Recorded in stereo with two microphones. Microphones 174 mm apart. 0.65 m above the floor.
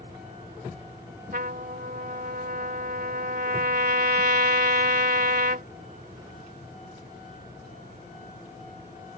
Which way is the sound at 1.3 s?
60° right (ahead or behind).